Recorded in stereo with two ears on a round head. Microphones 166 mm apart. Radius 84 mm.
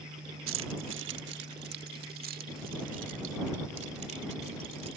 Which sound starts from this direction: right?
Keys jangling, at 0.5 s.